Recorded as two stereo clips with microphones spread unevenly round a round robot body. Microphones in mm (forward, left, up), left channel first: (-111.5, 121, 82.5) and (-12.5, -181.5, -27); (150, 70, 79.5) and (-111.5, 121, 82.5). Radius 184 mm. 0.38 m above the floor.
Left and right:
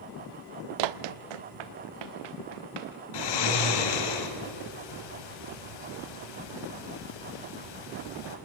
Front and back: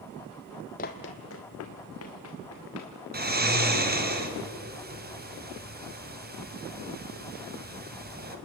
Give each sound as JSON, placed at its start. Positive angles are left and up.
{"t": 0.8, "sound": "running footsteps", "azimuth_deg": -80, "distance_m": 0.6}
{"t": 3.1, "sound": "snoring", "azimuth_deg": 115, "distance_m": 2.5}